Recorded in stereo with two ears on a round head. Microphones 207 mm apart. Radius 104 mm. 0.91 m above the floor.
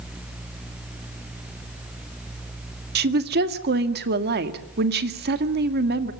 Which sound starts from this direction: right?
A woman speaking, at 3.0 s.